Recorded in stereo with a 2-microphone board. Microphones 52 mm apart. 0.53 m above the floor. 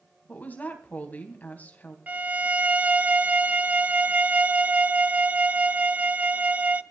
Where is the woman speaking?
30° left (ahead or behind), 3.5 m.